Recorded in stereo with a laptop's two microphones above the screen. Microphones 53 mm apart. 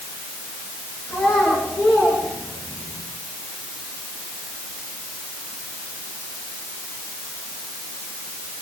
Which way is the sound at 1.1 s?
60° left (ahead or behind).